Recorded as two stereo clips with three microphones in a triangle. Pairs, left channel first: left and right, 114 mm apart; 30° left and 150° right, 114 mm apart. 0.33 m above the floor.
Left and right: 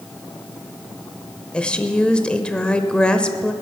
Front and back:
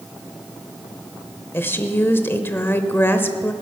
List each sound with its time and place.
1.5 s a woman speaking: 30° left, 0.8 m